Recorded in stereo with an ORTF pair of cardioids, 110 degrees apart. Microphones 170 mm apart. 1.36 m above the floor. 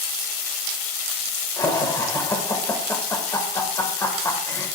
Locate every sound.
1.6 s laughter: 20° left, 1.7 m